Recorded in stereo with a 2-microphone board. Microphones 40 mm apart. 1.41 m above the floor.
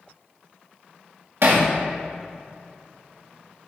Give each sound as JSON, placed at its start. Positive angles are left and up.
{"t": 1.4, "sound": "hammering", "side_deg": -70, "distance_m": 2.0}